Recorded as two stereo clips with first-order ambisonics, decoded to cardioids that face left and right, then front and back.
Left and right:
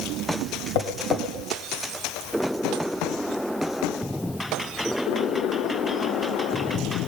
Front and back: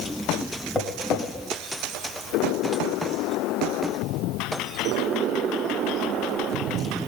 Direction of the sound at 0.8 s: 80° left.